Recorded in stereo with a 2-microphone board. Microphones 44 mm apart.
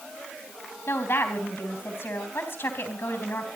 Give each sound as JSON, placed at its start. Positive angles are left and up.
{"t": 0.9, "sound": "a woman speaking", "side_deg": 70, "distance_m": 3.5}